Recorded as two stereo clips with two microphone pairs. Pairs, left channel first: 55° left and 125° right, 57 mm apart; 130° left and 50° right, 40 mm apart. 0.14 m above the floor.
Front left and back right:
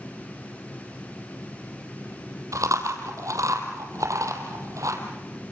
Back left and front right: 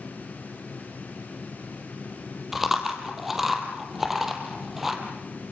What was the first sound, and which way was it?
Chewing, 135° right.